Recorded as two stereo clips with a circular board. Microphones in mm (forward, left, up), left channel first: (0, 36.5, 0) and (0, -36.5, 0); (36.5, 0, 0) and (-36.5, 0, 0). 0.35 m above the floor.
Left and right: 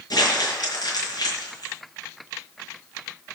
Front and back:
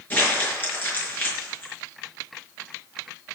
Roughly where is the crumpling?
Ahead left.